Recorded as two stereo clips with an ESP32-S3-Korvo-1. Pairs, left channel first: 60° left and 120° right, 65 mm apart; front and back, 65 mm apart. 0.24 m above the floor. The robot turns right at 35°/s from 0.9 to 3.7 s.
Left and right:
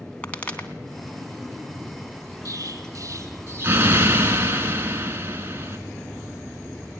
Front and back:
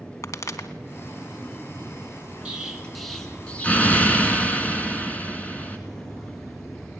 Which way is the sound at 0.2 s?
5° right.